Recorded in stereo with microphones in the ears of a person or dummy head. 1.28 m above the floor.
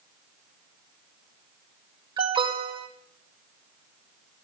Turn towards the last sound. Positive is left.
turn(degrees=-20)  # may be behind; listen again after turning